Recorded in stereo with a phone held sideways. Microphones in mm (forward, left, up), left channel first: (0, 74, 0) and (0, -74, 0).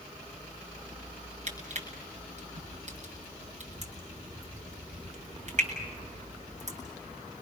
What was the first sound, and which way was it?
Crushing, 55° right (ahead or behind).